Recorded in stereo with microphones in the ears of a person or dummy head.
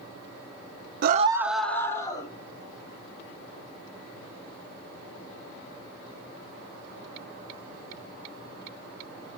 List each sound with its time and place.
1.0 s a scream: 55° right (ahead or behind), 0.6 m; by 2.3 s 25° left (ahead or behind), 1.8 m